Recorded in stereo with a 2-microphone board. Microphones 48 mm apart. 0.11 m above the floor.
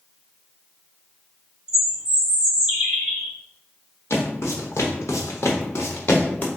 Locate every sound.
1.7 s a bird: 15° right (ahead or behind), 1.7 m
4.1 s footsteps: 65° left (ahead or behind), 1.5 m; by 6.5 s 40° left (ahead or behind), 1.0 m